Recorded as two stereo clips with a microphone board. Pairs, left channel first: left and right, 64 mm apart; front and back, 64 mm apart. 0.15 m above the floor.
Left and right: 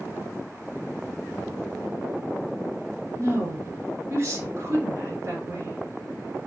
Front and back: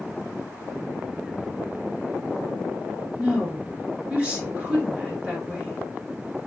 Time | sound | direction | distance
3.2 | a woman speaking | 115° right | 1.7 m